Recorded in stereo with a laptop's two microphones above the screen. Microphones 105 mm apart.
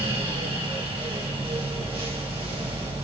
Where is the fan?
70° right (ahead or behind), 1.5 m.